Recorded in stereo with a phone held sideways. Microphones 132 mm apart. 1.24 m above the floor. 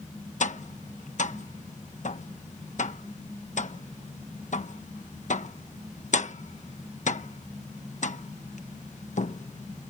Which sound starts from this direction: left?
Tapping, at 0.4 s.